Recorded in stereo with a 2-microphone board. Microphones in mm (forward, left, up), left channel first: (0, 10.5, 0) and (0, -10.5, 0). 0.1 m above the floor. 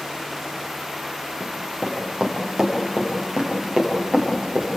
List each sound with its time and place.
1.4 s running footsteps: 20° right (ahead or behind), 4.5 m